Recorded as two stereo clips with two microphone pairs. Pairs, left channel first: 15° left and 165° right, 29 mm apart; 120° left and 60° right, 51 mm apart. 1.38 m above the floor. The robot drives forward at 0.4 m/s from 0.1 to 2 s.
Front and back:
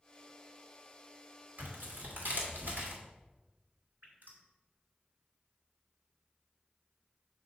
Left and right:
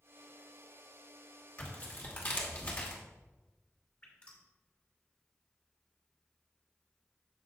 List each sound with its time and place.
1.6 s tearing paper: straight behind, 2 m
4.0 s dripping: 175° right, 2.5 m